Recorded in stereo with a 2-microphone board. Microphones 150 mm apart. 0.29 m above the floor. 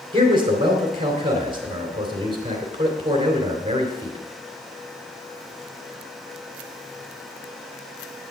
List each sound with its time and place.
0.1 s a man speaking: 30° right (ahead or behind), 3 m